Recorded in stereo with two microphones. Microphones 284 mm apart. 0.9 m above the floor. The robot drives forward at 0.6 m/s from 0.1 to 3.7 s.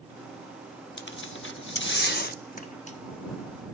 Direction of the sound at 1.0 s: 40° left (ahead or behind).